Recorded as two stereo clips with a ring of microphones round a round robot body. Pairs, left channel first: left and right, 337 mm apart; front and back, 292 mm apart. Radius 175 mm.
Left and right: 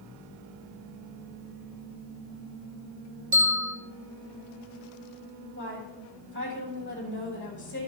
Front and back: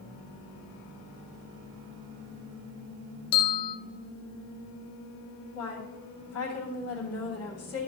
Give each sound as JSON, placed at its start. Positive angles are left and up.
{"t": 3.3, "sound": "a bell", "azimuth_deg": -20, "distance_m": 1.1}
{"t": 5.5, "sound": "a woman speaking", "azimuth_deg": 35, "distance_m": 3.0}